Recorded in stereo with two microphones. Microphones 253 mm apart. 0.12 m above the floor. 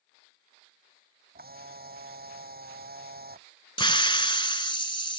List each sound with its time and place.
1.4 s a camera shutter: 40° right (ahead or behind)
3.8 s a hiss: 20° left (ahead or behind)